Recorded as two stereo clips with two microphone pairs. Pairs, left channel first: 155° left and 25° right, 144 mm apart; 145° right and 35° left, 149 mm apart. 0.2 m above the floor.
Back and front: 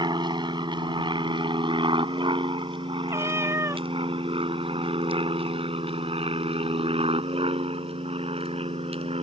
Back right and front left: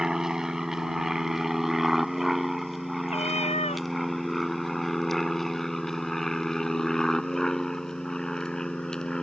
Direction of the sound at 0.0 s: 45° right.